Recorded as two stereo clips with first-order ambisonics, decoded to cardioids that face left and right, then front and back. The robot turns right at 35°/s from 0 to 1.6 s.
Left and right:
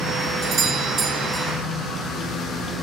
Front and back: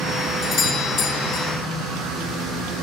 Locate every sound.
0.4 s a doorbell: 45° right, 1.0 m; by 1.5 s 10° right, 1.0 m